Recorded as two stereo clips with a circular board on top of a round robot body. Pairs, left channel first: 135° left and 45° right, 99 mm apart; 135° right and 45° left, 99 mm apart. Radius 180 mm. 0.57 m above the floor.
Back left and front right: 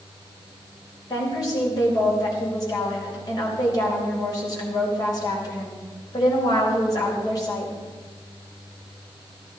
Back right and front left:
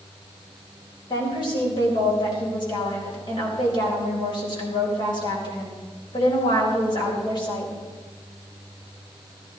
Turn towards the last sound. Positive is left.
turn(degrees=-175)